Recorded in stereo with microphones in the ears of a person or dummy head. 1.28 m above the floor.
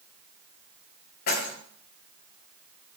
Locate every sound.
1.3 s keys jangling: 55° left (ahead or behind), 3.5 m